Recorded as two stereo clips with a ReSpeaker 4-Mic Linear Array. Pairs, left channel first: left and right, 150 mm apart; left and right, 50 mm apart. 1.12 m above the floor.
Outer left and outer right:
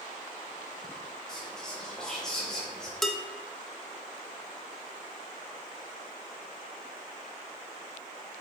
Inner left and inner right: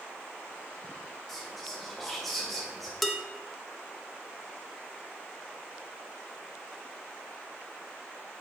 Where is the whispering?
5° left (ahead or behind), 0.8 m.